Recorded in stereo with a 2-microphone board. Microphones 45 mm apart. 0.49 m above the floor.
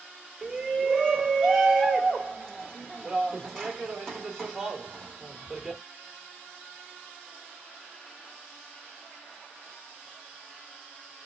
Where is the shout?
10° left (ahead or behind), 1.2 m.